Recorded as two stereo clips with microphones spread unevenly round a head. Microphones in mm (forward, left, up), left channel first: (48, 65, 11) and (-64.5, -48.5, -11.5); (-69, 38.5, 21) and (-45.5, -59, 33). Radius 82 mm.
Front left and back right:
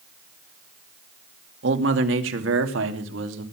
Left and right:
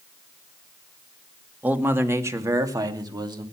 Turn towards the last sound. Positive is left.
turn(degrees=-120)